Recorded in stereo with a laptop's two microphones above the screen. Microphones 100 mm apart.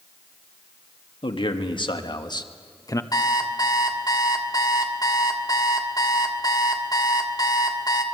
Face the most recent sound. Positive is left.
turn(degrees=40)  # may be behind; listen again after turning